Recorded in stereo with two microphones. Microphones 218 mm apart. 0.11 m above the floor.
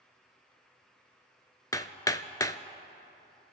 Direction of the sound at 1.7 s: 15° left (ahead or behind).